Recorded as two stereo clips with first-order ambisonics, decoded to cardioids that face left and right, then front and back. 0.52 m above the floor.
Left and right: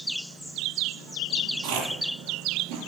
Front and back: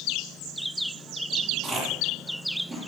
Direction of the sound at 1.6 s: 90° right.